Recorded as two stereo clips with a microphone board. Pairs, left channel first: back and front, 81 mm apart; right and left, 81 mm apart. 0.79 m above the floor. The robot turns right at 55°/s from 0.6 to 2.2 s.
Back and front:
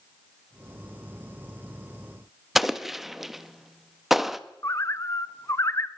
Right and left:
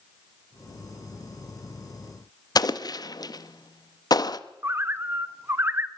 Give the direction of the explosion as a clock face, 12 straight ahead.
3 o'clock.